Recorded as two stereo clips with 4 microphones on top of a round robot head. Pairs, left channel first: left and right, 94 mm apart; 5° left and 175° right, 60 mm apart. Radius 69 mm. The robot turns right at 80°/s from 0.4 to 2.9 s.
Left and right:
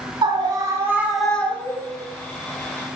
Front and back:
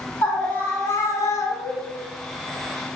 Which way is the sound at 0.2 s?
65° right.